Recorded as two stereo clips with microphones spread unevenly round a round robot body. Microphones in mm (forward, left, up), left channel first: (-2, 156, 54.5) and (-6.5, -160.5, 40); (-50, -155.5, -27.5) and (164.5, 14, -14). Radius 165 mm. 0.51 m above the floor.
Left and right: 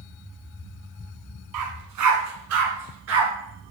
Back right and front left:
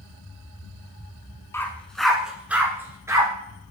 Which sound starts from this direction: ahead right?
A dog barking, at 1.5 s.